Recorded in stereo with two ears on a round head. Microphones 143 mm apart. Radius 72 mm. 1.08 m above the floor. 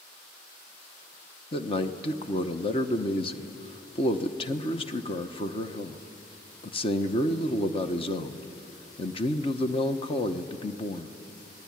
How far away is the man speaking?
About 1.0 m.